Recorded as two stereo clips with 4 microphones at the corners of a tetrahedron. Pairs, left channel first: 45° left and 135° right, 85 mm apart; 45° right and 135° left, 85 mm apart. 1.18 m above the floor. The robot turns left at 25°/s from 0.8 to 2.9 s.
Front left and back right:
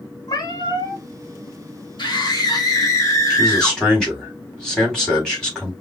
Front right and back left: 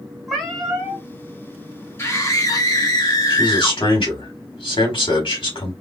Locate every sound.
0.3 s a cat meowing: 45° left, 1.5 m; by 1.0 s 40° left, 1.5 m
2.0 s a scream: 15° left, 1.8 m; by 3.8 s 5° right, 1.8 m
3.3 s a man speaking: 40° right, 3 m